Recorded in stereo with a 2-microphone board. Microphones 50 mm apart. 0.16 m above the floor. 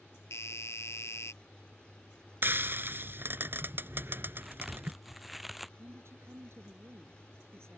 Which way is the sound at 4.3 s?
5° right (ahead or behind).